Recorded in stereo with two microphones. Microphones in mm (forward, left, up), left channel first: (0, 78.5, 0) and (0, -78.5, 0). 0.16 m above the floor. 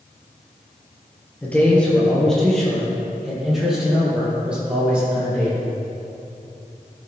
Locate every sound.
1.4 s a man speaking: 10° left (ahead or behind), 3 m; by 5.6 s 10° right (ahead or behind), 6.5 m